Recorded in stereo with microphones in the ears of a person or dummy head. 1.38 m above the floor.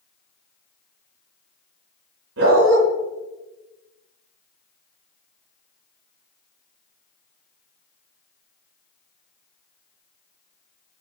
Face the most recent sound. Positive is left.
turn(degrees=-75)  # may be behind; listen again after turning